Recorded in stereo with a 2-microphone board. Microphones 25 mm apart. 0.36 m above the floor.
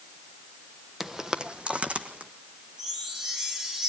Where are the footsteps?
10° right (ahead or behind), 0.8 m; by 2.3 s 65° right (ahead or behind), 1.9 m.